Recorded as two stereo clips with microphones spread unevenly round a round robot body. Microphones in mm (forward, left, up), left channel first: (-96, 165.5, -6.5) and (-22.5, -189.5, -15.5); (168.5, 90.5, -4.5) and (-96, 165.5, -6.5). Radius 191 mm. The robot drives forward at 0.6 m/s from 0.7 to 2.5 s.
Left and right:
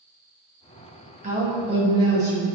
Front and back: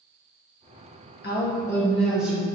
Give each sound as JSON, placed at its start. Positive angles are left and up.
{"t": 1.2, "sound": "a woman speaking", "azimuth_deg": -25, "distance_m": 0.7}